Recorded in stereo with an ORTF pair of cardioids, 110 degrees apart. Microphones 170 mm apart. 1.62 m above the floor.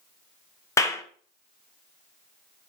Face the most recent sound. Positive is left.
turn(degrees=20)